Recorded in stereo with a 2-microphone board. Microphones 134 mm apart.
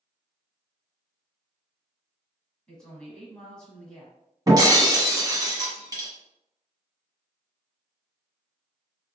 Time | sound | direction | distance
2.7 | a woman speaking | 5° left (ahead or behind) | 1.3 m
4.5 | breaking glass | 30° right (ahead or behind) | 1.0 m